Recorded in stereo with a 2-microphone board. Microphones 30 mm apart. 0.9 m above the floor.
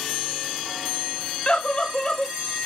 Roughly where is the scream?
Left.